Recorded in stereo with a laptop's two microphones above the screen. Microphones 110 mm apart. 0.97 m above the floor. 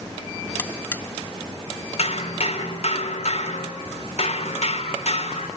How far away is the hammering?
About 3.5 m.